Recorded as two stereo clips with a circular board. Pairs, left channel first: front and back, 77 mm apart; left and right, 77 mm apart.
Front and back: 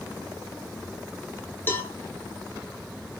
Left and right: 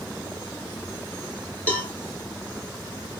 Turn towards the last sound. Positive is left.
turn(degrees=35)